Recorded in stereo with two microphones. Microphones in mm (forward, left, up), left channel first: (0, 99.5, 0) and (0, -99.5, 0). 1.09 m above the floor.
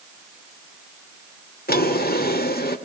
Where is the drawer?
55° left (ahead or behind), 1.8 m.